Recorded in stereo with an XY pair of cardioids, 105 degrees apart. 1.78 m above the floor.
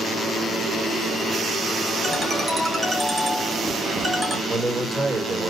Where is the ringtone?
30° right, 3 m.